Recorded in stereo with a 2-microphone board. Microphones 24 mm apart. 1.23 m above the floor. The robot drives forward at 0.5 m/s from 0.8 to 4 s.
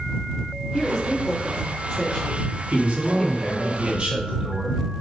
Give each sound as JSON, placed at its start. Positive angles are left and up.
{"t": 0.7, "sound": "a woman speaking", "side_deg": 15, "distance_m": 3.0}
{"t": 2.7, "sound": "a man speaking", "side_deg": -65, "distance_m": 1.8}